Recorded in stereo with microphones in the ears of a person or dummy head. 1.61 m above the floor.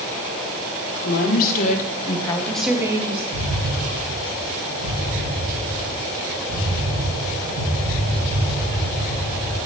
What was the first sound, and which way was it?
A woman speaking, 60° left (ahead or behind).